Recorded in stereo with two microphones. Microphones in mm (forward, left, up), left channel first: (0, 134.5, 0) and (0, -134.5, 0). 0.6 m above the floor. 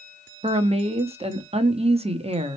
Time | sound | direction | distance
0.4 | a woman speaking | 20° right (ahead or behind) | 0.7 m